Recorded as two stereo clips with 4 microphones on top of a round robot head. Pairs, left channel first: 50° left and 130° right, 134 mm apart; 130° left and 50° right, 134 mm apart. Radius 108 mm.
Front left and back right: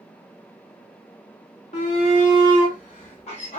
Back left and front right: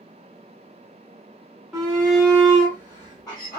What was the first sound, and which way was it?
A shout, 40° left.